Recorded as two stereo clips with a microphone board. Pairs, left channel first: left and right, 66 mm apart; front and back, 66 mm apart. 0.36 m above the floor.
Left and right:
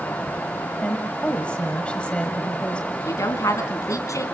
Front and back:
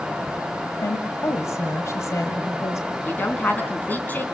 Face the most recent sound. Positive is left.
turn(degrees=60)